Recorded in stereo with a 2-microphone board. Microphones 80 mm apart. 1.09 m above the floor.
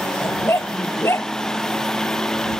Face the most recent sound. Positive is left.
turn(degrees=30)  # may be behind; listen again after turning